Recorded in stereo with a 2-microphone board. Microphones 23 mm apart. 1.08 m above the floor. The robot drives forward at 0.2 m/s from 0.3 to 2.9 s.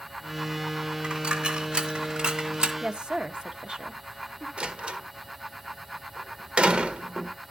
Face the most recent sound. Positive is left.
turn(degrees=-75)  # may be behind; listen again after turning